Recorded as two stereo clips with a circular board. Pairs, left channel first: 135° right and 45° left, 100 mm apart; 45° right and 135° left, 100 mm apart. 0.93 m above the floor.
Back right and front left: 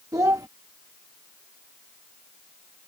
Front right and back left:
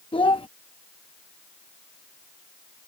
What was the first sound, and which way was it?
A child speaking, 10° right.